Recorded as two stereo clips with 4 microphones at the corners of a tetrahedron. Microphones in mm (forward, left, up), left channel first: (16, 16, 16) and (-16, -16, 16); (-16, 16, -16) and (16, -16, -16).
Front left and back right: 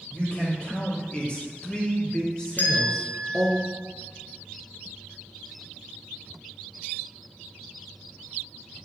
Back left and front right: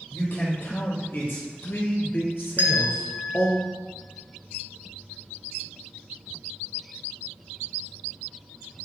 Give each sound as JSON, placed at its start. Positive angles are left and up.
{"t": 0.1, "sound": "a man speaking", "azimuth_deg": 110, "distance_m": 3.5}
{"t": 2.6, "sound": "a bell", "azimuth_deg": 0, "distance_m": 0.9}